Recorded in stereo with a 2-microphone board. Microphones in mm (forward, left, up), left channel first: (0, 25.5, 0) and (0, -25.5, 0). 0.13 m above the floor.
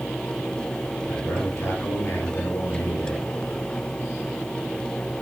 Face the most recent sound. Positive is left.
turn(degrees=55)  # may be behind; listen again after turning